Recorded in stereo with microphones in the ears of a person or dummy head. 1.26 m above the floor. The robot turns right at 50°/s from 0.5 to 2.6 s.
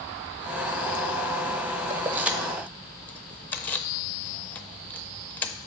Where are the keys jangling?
25° right (ahead or behind), 0.5 m; by 5.5 s 5° left (ahead or behind), 0.5 m.